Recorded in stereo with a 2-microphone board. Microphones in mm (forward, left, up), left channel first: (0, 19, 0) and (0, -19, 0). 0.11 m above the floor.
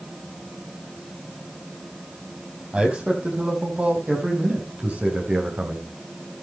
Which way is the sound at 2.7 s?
35° right (ahead or behind).